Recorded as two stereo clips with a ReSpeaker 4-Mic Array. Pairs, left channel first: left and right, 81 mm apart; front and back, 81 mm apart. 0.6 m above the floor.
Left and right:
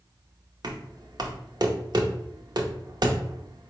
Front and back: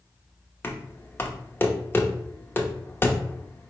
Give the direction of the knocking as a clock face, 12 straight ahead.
2 o'clock.